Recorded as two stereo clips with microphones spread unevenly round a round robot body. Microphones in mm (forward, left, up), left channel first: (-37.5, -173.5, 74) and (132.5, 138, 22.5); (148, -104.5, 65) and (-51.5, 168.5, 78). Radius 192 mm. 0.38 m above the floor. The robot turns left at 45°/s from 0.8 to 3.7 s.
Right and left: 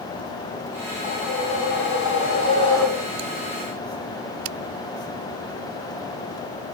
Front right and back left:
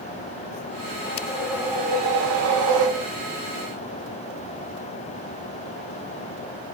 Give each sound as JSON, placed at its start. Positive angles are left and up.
{"t": 1.0, "sound": "a whoosh", "azimuth_deg": -125, "distance_m": 1.3}